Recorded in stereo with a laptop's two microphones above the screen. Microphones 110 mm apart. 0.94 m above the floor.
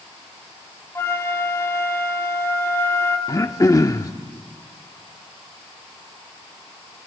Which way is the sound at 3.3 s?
30° left (ahead or behind).